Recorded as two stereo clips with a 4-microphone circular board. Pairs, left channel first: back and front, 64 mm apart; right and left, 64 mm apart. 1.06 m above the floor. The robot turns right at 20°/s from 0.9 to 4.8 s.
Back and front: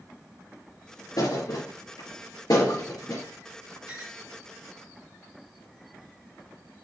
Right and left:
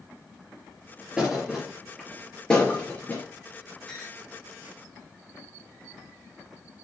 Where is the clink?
165° right, 6 m; by 4.2 s 160° right, 6 m.